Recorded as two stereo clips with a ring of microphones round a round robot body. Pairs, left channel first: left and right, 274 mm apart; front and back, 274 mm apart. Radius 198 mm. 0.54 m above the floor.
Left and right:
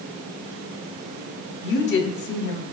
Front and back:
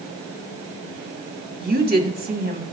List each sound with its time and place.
1.6 s a woman speaking: 130° left, 1.4 m